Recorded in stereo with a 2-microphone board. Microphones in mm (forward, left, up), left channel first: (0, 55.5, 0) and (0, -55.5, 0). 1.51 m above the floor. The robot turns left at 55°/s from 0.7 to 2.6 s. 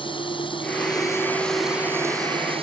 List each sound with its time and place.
0.0 s running water: 50° left; by 2.6 s 55° right